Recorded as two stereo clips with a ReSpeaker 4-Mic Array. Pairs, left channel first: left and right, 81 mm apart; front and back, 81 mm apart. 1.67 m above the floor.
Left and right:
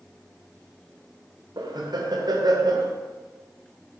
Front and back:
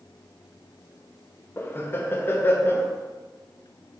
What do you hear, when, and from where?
1.6 s laughter: 60° right, 0.6 m